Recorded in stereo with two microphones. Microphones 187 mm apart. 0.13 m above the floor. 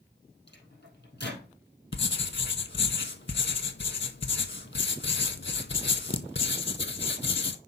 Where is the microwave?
65° left (ahead or behind), 3.5 m.